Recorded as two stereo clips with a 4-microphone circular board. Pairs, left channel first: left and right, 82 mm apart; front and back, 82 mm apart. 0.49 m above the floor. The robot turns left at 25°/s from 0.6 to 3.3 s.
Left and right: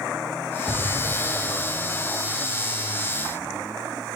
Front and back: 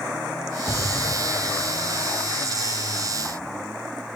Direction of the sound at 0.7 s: 60° left.